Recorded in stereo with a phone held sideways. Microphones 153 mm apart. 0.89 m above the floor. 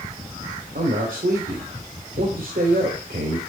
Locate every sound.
0.8 s a man speaking: 70° right (ahead or behind), 2.5 m